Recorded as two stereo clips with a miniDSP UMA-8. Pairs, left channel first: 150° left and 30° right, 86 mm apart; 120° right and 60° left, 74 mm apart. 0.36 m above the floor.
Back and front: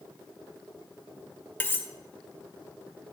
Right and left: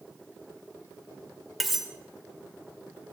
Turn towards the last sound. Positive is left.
turn(degrees=145)